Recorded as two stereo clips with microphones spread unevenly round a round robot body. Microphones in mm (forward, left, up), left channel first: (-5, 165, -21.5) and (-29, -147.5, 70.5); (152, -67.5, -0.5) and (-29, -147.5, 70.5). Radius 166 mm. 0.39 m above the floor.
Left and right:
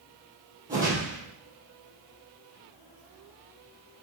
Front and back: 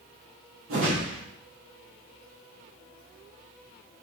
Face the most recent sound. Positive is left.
turn(degrees=-175)